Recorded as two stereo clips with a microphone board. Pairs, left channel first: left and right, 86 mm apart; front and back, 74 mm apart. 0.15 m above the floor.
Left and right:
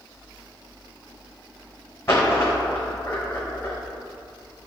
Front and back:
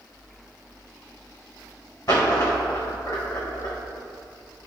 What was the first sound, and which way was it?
A dropped coin, 30° left.